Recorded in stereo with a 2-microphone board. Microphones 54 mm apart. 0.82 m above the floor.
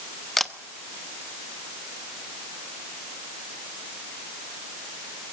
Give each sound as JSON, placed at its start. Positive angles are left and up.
{"t": 0.4, "sound": "a camera shutter", "side_deg": 5, "distance_m": 0.9}